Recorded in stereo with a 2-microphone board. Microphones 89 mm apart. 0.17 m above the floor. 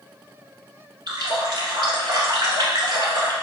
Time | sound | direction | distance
1.1 | a running tap | 55° right (ahead or behind) | 1.1 m